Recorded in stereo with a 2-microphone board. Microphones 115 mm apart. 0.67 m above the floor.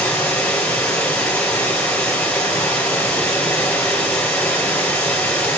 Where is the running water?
15° left (ahead or behind), 4 m.